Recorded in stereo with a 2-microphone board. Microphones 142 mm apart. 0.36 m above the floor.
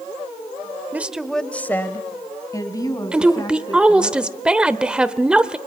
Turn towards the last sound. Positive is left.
turn(degrees=-5)  # may be behind; listen again after turning